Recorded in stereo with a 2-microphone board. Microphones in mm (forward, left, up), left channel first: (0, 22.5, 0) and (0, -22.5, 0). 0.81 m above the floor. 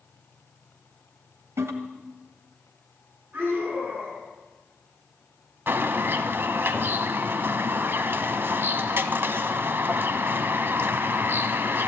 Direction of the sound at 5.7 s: 50° right (ahead or behind).